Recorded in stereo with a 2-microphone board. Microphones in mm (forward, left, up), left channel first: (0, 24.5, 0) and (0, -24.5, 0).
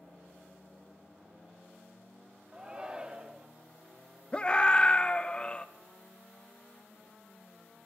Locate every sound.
2.5 s a shout: 20° right (ahead or behind), 1.1 m
4.3 s a scream: 25° left (ahead or behind), 0.6 m